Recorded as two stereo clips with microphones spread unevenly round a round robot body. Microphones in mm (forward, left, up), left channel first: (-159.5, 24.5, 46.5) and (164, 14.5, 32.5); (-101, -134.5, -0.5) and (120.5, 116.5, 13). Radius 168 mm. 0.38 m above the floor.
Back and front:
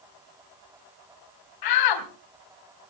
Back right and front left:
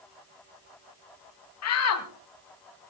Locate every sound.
1.6 s a shout: 175° right, 3 m